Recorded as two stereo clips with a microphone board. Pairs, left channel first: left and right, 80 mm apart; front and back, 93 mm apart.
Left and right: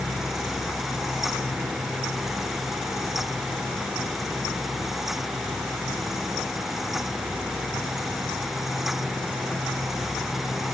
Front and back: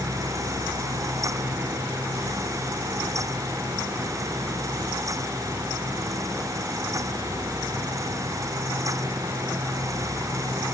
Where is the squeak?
No squeak in this recording.